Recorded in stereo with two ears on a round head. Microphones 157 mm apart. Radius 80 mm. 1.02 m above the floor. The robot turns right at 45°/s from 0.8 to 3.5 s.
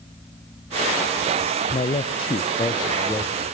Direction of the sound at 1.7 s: 85° left.